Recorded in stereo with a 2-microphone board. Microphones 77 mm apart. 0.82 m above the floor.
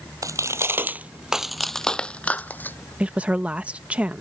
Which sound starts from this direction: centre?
A woman speaking, at 3.0 s.